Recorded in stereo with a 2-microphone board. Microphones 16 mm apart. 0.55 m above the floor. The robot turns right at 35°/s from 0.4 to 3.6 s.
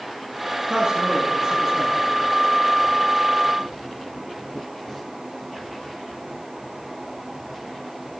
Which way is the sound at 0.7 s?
45° right.